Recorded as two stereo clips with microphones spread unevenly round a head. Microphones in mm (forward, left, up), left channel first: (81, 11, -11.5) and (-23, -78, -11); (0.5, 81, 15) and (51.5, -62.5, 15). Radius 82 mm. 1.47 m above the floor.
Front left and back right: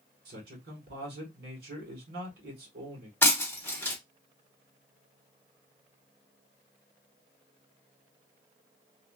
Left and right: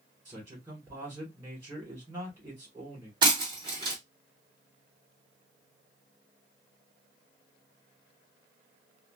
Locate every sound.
0.2 s a man speaking: 150° right, 1.5 m
3.2 s breaking glass: 30° right, 1.2 m